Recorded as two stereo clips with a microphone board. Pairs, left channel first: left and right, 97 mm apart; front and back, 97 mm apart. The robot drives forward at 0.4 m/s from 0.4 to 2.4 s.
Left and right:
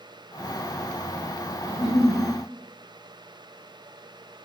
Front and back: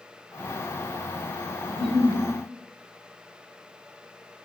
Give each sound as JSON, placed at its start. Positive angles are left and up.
{"t": 1.7, "sound": "a giggle", "azimuth_deg": 95, "distance_m": 1.2}